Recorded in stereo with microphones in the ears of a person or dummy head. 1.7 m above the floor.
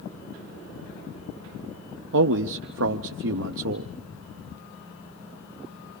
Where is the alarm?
I don't hear an alarm.